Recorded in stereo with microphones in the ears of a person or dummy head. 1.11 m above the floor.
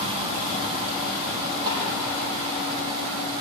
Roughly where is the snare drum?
Right.